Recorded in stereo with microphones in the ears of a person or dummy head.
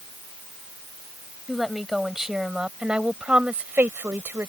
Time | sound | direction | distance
1.5 | a woman speaking | centre (ahead or behind) | ?